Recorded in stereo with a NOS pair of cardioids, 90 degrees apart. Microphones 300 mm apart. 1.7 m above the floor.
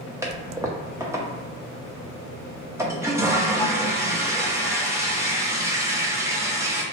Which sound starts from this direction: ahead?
A toilet flushing, at 0.2 s.